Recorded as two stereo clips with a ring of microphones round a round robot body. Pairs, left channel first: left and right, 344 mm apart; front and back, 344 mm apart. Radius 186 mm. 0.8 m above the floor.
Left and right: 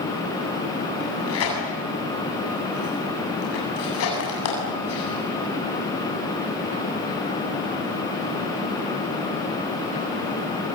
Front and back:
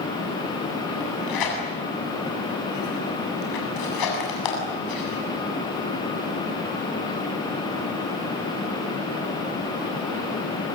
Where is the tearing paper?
35° left, 8 m.